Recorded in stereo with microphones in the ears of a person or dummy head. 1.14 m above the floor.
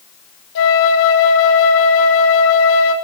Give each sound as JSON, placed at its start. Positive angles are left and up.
{"t": 0.6, "sound": "a flute", "side_deg": 70, "distance_m": 4.0}